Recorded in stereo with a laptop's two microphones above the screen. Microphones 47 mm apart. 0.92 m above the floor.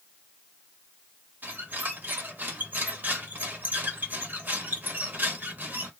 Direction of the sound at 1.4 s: 40° right (ahead or behind).